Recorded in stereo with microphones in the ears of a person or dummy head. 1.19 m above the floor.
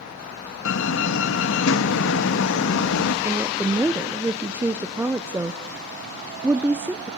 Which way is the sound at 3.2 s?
5° right (ahead or behind).